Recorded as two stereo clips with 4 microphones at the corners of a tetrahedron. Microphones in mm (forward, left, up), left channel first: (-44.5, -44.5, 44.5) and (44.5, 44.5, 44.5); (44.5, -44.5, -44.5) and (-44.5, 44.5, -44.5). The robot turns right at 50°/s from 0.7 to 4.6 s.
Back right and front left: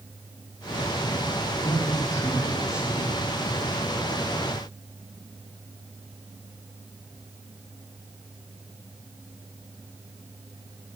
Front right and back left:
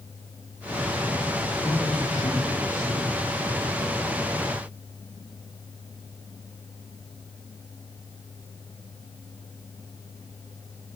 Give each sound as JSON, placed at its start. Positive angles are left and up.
{"t": 1.6, "sound": "a man speaking", "azimuth_deg": -95, "distance_m": 9.0}